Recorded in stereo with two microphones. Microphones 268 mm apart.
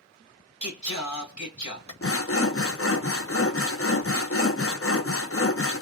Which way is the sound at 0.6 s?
85° left.